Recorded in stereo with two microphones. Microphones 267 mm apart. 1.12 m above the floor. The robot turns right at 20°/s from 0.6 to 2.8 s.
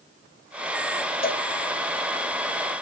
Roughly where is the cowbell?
Left.